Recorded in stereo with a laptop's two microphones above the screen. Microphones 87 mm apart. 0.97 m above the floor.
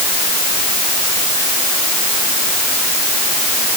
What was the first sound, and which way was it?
Only background noise.